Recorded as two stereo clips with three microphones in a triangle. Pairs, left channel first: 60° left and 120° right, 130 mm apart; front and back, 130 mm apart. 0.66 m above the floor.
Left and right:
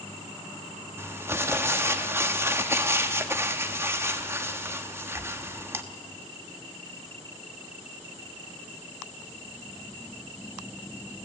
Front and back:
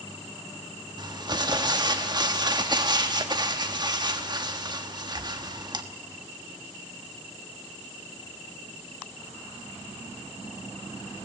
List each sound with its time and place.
1.0 s crumpling: 175° right, 1.3 m